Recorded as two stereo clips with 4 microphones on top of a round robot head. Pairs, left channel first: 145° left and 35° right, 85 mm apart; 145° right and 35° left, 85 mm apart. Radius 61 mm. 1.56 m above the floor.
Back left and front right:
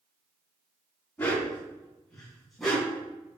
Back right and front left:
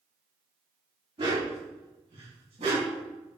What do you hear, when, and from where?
1.2 s a dog barking: 70° left, 4.5 m; by 3.0 s 55° left, 4.5 m